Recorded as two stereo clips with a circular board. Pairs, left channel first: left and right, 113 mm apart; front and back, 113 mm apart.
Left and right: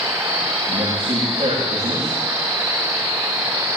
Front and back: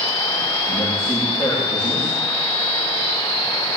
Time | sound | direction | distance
0.7 | a man speaking | 40° right | 9.5 m